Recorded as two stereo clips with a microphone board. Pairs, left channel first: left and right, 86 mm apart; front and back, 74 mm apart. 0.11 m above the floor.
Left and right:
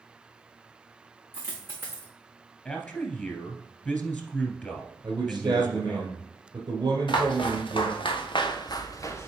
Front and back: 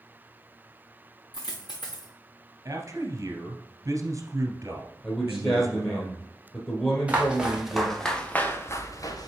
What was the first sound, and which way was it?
A dropped coin, 25° right.